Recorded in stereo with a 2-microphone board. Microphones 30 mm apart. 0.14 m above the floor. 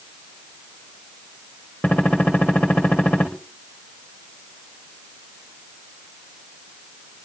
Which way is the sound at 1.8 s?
65° left (ahead or behind).